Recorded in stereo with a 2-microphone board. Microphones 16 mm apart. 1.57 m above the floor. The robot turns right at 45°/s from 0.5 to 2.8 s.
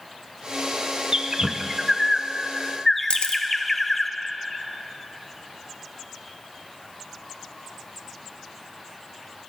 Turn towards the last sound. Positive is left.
turn(degrees=75)  # may be behind; listen again after turning